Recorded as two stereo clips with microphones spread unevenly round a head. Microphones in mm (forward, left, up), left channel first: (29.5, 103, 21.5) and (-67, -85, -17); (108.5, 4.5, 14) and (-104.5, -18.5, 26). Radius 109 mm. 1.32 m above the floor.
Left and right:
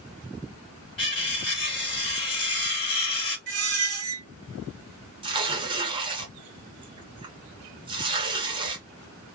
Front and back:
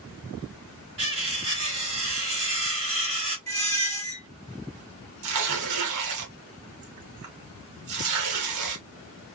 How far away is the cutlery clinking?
About 1.5 m.